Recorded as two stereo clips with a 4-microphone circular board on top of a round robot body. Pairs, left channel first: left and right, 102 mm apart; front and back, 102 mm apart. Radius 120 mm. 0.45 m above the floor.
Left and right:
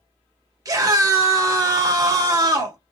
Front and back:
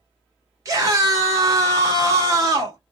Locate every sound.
0.7 s a scream: 130° right, 2 m